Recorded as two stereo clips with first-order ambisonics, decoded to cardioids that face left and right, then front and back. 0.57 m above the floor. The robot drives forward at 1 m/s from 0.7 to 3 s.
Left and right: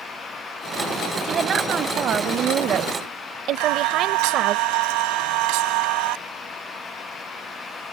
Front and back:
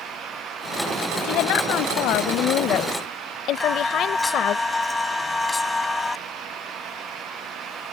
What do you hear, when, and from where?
1.2 s a woman speaking: 30° right; by 4.6 s 45° right
3.6 s singing: 80° right